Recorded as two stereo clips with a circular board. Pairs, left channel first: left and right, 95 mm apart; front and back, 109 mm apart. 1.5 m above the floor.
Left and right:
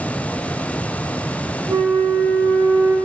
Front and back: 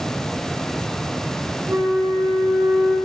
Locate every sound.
1.7 s a flute: 120° right, 1.0 m